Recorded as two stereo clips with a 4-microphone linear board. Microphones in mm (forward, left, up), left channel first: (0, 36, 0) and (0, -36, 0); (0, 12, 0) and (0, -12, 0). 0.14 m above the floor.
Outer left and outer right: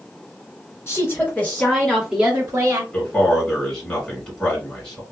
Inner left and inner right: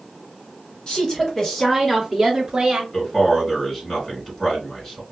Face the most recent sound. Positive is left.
turn(degrees=10)  # may be behind; listen again after turning